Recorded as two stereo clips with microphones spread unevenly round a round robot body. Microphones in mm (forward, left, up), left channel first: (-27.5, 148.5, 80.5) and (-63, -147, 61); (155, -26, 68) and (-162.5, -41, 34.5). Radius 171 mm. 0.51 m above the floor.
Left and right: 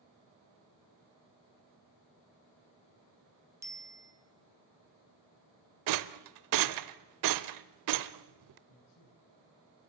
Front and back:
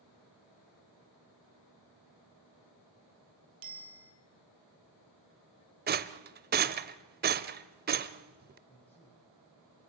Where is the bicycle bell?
175° right, 2.5 m.